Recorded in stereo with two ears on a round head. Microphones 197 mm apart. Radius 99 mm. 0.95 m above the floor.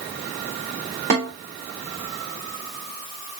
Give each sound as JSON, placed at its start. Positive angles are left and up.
{"t": 1.1, "sound": "a snare drum", "side_deg": -40, "distance_m": 2.5}